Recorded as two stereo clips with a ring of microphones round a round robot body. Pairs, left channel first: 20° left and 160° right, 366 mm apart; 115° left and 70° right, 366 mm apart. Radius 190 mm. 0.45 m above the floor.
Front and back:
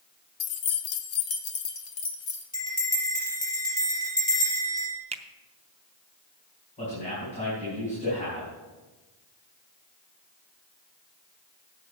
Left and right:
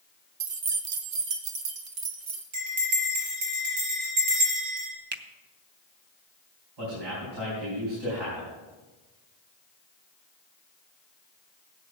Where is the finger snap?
100° right, 0.7 m.